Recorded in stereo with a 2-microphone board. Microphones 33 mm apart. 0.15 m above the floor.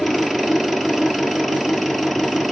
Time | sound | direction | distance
0.0 | an engine running | centre (ahead or behind) | 1.3 m